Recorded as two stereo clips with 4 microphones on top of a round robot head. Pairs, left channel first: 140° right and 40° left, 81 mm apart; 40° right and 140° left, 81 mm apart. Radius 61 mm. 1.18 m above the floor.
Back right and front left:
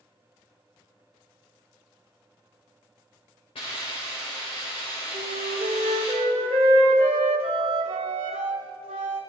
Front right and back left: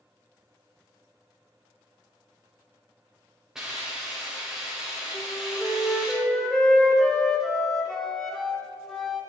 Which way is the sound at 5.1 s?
45° left.